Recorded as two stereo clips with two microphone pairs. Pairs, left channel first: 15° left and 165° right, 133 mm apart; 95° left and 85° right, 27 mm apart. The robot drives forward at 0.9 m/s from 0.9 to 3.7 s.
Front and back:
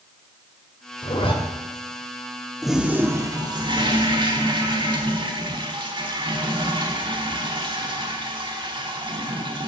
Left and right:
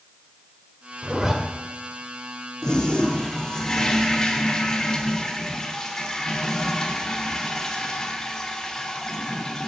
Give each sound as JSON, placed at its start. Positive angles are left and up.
{"t": 1.0, "sound": "a zipper", "azimuth_deg": -20, "distance_m": 2.0}
{"t": 2.6, "sound": "a toilet flushing", "azimuth_deg": 100, "distance_m": 1.1}